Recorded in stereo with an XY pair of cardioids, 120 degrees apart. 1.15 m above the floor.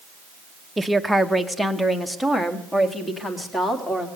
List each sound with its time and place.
0.8 s a woman speaking: 10° right, 0.8 m; by 4.1 s 20° left, 2.5 m